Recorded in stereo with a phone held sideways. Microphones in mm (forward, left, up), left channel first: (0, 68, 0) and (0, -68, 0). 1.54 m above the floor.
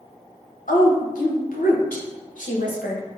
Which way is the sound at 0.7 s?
80° left.